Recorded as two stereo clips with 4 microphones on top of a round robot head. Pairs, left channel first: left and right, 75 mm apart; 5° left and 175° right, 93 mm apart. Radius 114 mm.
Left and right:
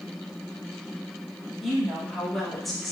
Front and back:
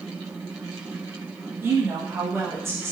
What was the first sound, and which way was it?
A woman speaking, straight behind.